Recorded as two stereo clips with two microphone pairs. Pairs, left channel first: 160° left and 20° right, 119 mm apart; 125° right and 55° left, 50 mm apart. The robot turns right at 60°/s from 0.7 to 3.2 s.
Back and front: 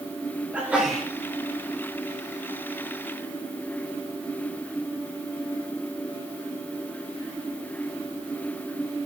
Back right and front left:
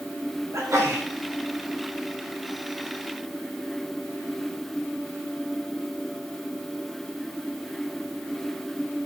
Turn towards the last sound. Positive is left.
turn(degrees=-155)